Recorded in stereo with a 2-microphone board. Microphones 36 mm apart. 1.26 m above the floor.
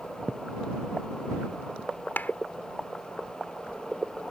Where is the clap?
55° left (ahead or behind).